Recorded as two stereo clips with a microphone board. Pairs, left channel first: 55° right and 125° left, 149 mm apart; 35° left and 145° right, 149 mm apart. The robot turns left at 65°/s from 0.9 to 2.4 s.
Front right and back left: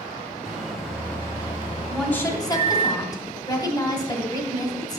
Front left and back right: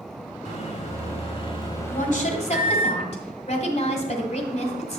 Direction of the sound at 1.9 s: 35° left.